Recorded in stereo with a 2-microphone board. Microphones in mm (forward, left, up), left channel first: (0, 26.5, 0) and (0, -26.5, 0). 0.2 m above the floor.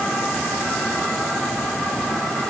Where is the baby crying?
No baby crying in this recording.